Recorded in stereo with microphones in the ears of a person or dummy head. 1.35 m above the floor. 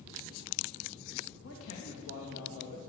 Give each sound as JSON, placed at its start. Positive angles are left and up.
{"t": 1.4, "sound": "a man speaking", "side_deg": 80, "distance_m": 2.0}